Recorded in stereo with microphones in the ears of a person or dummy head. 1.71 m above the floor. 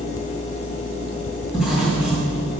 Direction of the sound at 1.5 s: 5° right (ahead or behind).